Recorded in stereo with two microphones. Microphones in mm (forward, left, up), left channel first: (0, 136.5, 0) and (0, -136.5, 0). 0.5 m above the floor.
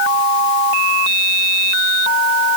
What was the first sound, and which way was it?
Only background noise.